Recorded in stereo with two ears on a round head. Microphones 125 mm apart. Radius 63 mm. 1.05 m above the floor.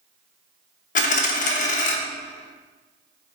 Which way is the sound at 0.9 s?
60° left (ahead or behind).